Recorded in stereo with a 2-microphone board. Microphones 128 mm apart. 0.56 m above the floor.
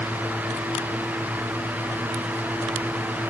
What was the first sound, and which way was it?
Only background noise.